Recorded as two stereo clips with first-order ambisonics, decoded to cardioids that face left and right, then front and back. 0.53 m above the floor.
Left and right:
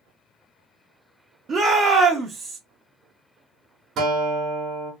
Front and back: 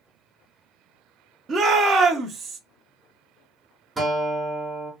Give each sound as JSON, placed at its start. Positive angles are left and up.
{"t": 1.5, "sound": "a shout", "azimuth_deg": -140, "distance_m": 0.7}
{"t": 4.0, "sound": "a guitar", "azimuth_deg": -110, "distance_m": 1.0}